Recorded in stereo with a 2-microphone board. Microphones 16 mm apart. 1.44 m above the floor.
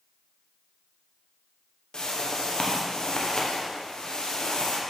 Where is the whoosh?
55° left (ahead or behind), 0.8 m.